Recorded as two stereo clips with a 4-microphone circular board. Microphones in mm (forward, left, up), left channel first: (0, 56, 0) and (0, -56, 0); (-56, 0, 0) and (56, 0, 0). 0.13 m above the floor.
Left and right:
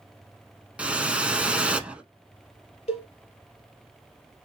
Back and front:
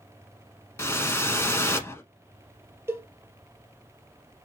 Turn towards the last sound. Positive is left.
turn(degrees=70)